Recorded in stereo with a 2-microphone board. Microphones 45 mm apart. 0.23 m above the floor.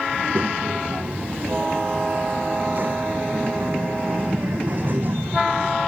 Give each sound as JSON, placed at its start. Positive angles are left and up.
{"t": 0.1, "sound": "a child speaking", "side_deg": -45}